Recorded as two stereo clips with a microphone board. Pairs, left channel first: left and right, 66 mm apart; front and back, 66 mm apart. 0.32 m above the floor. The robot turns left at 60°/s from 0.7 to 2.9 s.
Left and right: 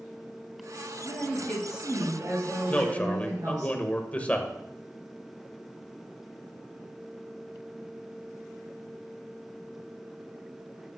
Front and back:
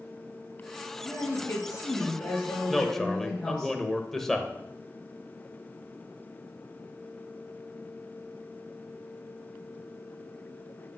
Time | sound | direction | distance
1.0 | a woman speaking | 30° left | 5 m
2.7 | a man speaking | 90° left | 0.9 m